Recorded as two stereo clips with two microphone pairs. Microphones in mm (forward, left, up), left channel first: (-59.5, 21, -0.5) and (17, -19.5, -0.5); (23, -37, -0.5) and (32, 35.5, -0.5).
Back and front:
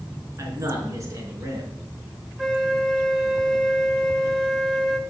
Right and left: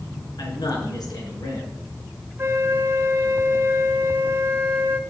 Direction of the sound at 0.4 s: 80° right.